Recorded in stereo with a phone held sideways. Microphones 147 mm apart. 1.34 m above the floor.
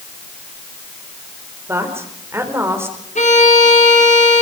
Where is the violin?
55° left (ahead or behind), 5 m.